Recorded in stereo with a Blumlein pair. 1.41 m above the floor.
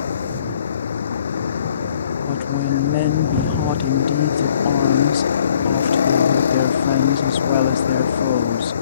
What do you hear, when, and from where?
0.0 s a vehicle: 70° left
2.2 s a woman speaking: 50° left